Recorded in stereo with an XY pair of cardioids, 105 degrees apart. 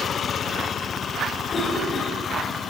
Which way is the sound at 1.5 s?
35° left.